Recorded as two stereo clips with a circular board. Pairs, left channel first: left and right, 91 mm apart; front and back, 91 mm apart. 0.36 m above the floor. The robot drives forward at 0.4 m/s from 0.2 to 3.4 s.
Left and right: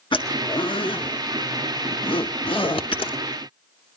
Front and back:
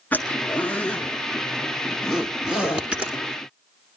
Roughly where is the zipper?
Left.